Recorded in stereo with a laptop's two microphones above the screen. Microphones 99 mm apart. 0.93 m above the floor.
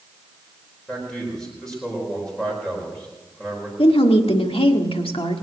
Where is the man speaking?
5° left (ahead or behind), 4.5 m.